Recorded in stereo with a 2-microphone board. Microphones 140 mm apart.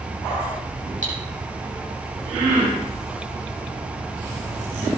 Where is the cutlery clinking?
65° right (ahead or behind), 6.5 m.